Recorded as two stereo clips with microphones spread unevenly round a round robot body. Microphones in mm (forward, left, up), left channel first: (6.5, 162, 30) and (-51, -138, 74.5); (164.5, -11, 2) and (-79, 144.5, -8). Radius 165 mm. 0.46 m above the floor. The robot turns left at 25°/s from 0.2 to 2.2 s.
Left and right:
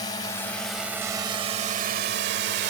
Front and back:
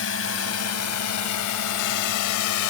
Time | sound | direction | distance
0.0 | a drone | 5° left | ?